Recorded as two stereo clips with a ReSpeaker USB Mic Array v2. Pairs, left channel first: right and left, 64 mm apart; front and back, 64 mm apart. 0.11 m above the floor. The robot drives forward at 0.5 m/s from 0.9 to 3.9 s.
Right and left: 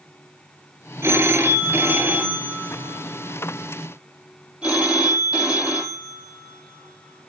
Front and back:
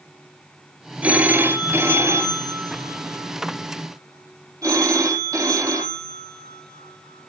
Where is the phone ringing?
120° left, 1.1 m; by 7.3 s 160° left, 2 m.